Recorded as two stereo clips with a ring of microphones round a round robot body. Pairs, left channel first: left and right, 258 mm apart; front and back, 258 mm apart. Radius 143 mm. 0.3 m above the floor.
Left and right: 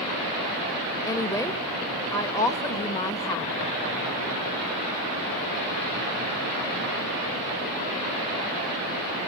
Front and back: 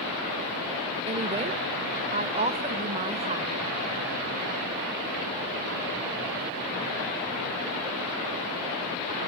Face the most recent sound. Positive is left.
turn(degrees=150)